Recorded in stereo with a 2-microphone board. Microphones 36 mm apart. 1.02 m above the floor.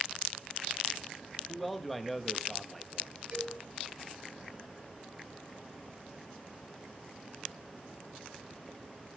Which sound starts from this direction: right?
A cowbell, at 3.3 s.